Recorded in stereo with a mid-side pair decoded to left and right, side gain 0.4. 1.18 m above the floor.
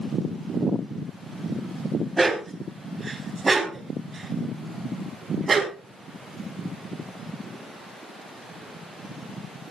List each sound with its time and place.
2.2 s a dog barking: 20° right, 4 m; by 5.8 s 40° right, 5 m